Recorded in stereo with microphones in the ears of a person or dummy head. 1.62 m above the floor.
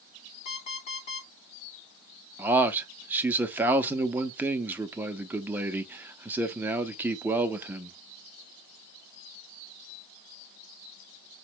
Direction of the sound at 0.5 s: 35° left (ahead or behind).